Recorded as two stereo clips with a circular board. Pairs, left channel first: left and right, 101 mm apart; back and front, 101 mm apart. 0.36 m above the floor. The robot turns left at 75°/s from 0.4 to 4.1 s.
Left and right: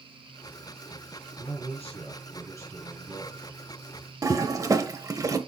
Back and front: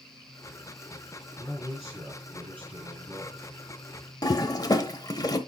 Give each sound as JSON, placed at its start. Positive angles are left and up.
{"t": 1.4, "sound": "a man speaking", "azimuth_deg": 120, "distance_m": 4.5}
{"t": 4.2, "sound": "a toilet flushing", "azimuth_deg": -140, "distance_m": 0.9}